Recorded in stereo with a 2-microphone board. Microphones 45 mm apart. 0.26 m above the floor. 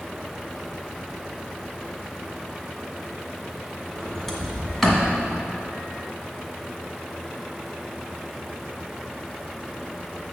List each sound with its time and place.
4.0 s a sliding door: 5° left (ahead or behind), 1.5 m